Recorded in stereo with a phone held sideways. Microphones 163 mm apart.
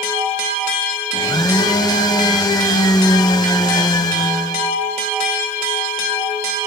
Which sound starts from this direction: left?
A blender, at 1.1 s.